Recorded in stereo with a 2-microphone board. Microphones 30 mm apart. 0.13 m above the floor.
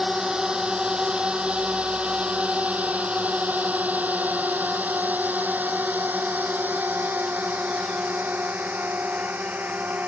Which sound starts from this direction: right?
A drone, at 0.0 s.